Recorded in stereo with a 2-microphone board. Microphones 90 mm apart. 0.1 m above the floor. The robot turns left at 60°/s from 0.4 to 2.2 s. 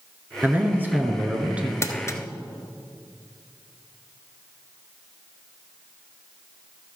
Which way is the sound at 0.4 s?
20° right (ahead or behind).